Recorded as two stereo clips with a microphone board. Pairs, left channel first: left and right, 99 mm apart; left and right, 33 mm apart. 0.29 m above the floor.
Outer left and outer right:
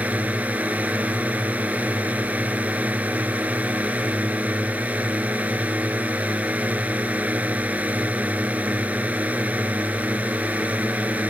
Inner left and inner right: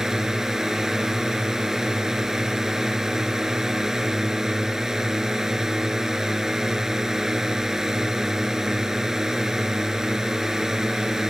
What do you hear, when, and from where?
0.0 s a drone: 15° right (ahead or behind)